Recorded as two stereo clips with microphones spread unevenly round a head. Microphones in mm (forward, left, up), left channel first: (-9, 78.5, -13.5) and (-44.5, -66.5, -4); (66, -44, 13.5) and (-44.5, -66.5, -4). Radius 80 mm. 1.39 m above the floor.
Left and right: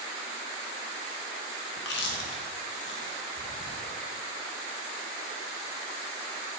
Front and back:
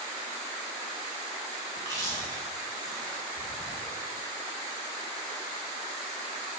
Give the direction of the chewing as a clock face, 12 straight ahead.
9 o'clock.